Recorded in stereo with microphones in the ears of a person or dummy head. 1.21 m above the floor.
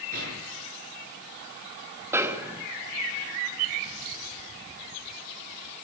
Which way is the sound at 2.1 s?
10° right (ahead or behind).